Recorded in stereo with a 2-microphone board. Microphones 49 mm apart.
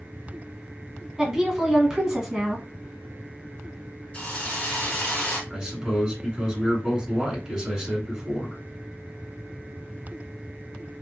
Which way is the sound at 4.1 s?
25° left (ahead or behind).